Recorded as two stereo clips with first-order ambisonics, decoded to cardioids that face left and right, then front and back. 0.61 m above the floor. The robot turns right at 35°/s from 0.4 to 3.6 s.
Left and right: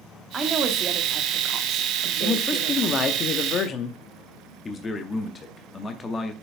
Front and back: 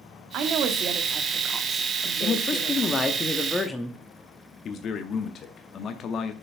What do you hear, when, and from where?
0.3 s a woman speaking: 155° right, 1.2 m; by 3.2 s 55° right, 1.2 m
2.2 s a man speaking: 30° left, 0.8 m; by 4.0 s 80° left, 0.8 m
4.7 s a man speaking: 30° left, 0.7 m